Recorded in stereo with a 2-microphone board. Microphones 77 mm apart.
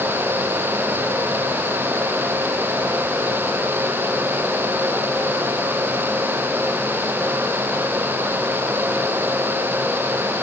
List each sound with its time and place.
Only background noise.